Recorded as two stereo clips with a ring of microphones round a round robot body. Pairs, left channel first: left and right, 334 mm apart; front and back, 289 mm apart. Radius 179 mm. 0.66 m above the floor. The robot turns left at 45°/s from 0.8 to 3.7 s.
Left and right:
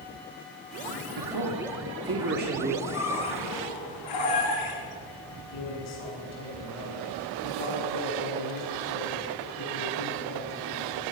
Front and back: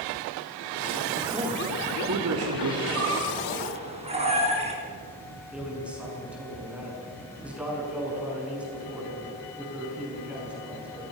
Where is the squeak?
150° left, 5 m; by 4.8 s 110° left, 5 m.